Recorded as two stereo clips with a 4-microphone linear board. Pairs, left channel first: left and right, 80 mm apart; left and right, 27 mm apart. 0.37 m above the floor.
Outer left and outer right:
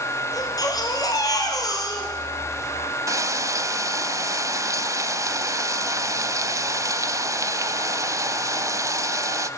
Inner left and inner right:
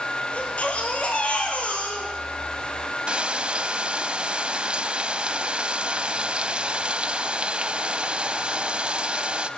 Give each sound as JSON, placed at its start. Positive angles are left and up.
{"t": 0.3, "sound": "a baby crying", "side_deg": 50, "distance_m": 3.5}
{"t": 3.1, "sound": "frying", "side_deg": -45, "distance_m": 0.6}